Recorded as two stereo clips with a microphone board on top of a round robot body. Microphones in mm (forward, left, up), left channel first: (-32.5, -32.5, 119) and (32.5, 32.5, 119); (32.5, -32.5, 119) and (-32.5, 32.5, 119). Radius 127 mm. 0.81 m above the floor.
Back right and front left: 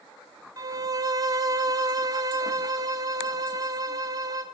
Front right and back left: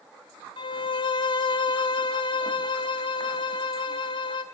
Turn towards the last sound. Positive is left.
turn(degrees=-10)